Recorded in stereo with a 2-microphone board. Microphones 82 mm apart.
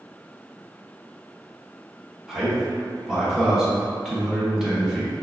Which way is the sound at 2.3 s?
5° right (ahead or behind).